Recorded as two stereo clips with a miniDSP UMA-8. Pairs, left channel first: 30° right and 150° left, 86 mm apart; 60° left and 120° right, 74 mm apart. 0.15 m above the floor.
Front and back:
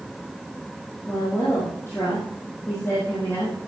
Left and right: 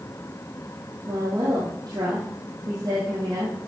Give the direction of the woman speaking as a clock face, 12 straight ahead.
3 o'clock.